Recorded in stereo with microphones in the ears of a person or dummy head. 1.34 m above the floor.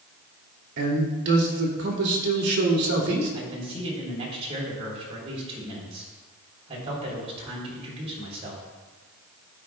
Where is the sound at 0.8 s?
60° right (ahead or behind), 2.5 m.